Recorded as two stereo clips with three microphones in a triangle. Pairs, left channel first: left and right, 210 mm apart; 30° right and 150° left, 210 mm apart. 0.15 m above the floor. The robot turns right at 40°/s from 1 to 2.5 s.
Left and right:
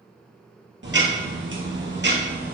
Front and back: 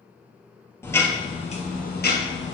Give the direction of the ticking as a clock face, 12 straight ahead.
4 o'clock.